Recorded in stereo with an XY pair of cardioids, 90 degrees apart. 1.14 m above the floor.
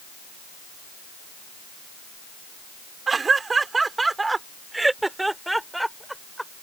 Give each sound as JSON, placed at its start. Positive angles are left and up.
{"t": 3.1, "sound": "laughter", "azimuth_deg": -40}